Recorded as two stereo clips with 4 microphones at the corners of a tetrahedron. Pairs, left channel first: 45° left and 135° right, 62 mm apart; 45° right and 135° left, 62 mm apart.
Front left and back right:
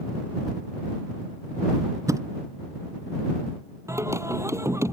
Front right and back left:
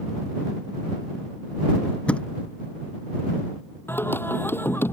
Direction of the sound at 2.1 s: 115° right.